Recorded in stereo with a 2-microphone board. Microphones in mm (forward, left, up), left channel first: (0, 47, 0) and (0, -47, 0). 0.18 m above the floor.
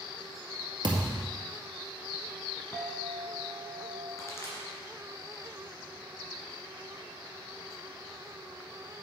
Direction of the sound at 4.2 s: 30° left (ahead or behind).